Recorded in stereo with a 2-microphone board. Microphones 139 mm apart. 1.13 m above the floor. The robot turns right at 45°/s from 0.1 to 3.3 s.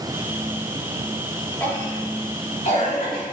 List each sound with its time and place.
1.6 s a cough: 10° left (ahead or behind), 3 m; by 3.2 s 80° left, 3 m